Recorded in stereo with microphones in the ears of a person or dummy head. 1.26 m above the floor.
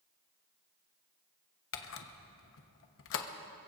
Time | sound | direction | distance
1.7 | a camera shutter | 65° left (ahead or behind) | 1.1 m